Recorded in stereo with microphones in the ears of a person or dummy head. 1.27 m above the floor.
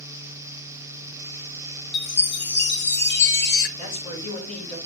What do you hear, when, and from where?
1.9 s a chime: 50° left (ahead or behind), 0.8 m
3.8 s a man speaking: 80° left, 3.5 m